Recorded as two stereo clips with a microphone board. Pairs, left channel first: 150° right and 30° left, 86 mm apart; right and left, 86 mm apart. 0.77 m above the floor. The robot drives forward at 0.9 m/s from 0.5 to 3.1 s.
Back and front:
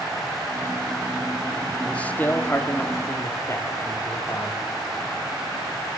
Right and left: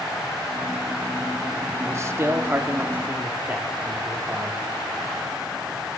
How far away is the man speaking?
About 1.3 m.